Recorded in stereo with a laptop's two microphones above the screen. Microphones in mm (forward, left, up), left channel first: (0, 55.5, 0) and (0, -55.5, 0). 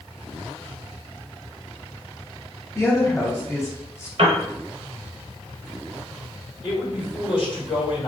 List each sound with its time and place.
2.8 s a woman speaking: 25° left (ahead or behind), 0.9 m
4.2 s a piano: 60° right (ahead or behind), 0.9 m
6.6 s a man speaking: 50° left (ahead or behind), 1.7 m